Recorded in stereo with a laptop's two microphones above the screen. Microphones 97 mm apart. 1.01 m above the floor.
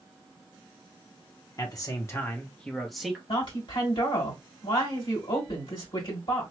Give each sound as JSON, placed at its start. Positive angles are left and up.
{"t": 1.6, "sound": "a man speaking", "side_deg": 40, "distance_m": 0.8}
{"t": 3.3, "sound": "a woman speaking", "side_deg": 60, "distance_m": 2.0}